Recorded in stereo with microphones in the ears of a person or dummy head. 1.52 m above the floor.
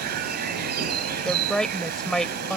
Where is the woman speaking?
5° left (ahead or behind).